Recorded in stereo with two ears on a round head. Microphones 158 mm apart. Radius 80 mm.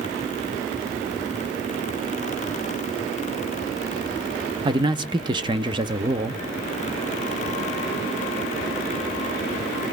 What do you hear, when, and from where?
4.7 s a man speaking: 25° right (ahead or behind), 0.5 m